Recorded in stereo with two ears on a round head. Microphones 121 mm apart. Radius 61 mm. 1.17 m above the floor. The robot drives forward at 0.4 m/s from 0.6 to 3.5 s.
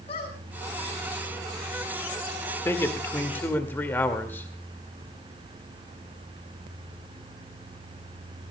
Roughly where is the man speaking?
Left.